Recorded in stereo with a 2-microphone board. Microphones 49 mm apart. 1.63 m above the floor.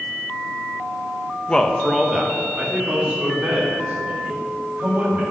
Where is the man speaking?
25° left (ahead or behind), 0.7 m; by 5.2 s 35° right (ahead or behind), 4.5 m.